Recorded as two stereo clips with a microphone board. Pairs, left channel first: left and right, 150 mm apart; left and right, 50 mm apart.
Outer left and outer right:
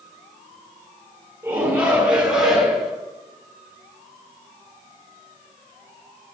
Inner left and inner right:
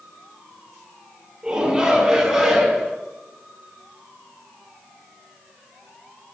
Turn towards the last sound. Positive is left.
turn(degrees=0)  # may be behind; listen again after turning